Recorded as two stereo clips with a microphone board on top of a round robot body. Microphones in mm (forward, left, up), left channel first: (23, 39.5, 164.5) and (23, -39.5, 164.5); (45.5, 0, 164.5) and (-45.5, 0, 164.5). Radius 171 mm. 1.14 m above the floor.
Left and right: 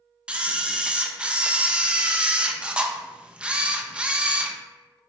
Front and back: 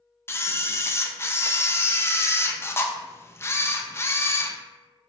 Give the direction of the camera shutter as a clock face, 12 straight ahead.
1 o'clock.